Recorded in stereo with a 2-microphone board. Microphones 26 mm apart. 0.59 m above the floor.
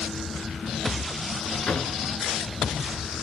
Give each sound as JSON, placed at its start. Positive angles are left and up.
{"t": 1.7, "sound": "a drawer", "side_deg": 50, "distance_m": 2.0}